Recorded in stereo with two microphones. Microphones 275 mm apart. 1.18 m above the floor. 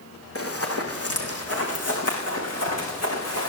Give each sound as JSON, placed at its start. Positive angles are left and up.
{"t": 0.3, "sound": "running footsteps", "side_deg": 55, "distance_m": 3.5}